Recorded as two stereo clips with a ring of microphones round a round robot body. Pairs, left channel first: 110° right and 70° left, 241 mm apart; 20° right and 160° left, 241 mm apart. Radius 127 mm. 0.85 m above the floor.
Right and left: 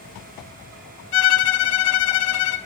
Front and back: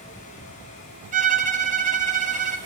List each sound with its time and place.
1.1 s a violin: 140° right, 0.7 m